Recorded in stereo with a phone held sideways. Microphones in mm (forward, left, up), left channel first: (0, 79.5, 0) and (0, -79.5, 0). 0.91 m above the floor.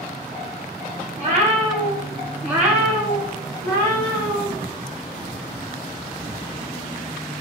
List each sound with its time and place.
1.2 s a cat meowing: 45° right (ahead or behind), 1.5 m; by 4.5 s 35° left (ahead or behind), 1.5 m